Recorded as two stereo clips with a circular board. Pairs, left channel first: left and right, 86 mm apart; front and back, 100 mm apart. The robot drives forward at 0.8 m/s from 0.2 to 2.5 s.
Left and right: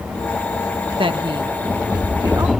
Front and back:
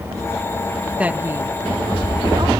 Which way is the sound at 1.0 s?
100° right.